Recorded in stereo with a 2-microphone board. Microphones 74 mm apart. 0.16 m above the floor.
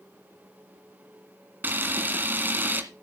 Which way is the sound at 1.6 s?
30° right (ahead or behind).